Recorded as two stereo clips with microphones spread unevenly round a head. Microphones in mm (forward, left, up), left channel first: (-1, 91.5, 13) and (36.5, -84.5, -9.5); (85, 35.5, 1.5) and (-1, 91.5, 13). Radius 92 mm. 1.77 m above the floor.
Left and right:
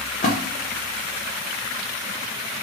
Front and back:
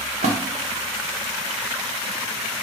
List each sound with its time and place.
0.2 s a splash: 155° left, 0.7 m